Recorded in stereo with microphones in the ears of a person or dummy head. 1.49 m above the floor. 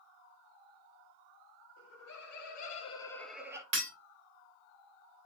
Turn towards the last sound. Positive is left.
turn(degrees=-25)  # may be behind; listen again after turning